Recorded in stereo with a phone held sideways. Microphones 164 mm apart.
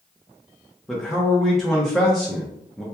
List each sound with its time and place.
0.9 s a man speaking: centre (ahead or behind), 0.7 m